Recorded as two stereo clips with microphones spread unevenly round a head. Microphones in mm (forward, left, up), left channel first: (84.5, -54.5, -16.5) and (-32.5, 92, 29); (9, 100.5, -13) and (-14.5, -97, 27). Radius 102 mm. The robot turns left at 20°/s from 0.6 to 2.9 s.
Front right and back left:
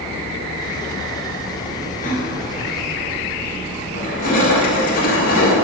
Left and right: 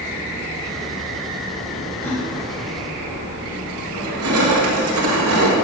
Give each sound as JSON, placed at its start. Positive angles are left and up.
{"t": 2.0, "sound": "a gasp", "azimuth_deg": 0, "distance_m": 2.5}
{"t": 3.9, "sound": "crushing", "azimuth_deg": -105, "distance_m": 1.9}